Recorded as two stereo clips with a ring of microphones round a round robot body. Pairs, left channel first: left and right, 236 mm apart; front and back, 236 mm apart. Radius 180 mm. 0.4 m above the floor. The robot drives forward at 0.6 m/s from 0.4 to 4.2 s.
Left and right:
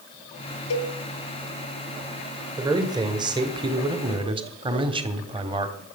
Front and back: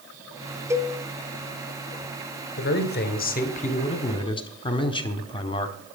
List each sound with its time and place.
0.7 s a cowbell: 100° left, 1.2 m; by 0.9 s 110° left, 1.2 m
2.6 s a man speaking: 20° right, 2 m; by 5.8 s 45° right, 1.5 m